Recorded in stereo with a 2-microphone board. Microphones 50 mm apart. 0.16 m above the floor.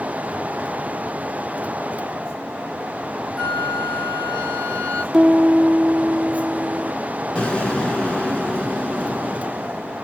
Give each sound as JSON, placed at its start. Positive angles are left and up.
{"t": 3.4, "sound": "a flute", "side_deg": 15, "distance_m": 1.1}
{"t": 5.1, "sound": "a piano", "side_deg": -5, "distance_m": 1.8}
{"t": 7.3, "sound": "an explosion", "side_deg": 20, "distance_m": 1.3}